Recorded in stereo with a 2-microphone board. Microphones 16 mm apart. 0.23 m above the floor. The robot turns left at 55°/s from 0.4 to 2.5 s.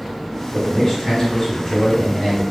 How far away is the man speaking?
About 1.9 m.